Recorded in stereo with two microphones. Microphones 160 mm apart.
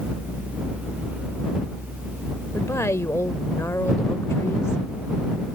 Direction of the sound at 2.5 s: 15° left (ahead or behind).